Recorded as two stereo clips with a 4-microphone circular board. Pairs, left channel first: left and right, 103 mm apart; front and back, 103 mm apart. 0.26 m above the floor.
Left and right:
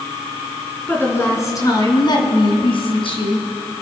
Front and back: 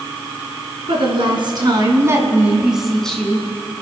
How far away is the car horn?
No car horn in this recording.